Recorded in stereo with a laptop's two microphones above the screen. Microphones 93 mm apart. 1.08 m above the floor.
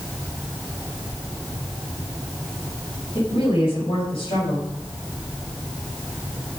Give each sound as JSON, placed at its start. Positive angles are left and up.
{"t": 3.1, "sound": "a woman speaking", "side_deg": 75, "distance_m": 6.0}